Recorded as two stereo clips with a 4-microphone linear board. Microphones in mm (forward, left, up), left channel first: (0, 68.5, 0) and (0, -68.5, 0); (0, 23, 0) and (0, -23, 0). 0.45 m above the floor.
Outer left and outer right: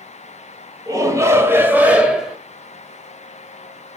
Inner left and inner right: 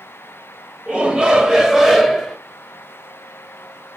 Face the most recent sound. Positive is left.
turn(degrees=-5)  # may be behind; listen again after turning